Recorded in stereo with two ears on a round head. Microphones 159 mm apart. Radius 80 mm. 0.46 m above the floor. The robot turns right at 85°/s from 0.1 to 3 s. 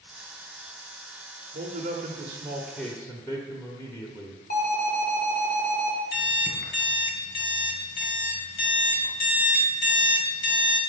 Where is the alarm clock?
55° left (ahead or behind), 1.8 m.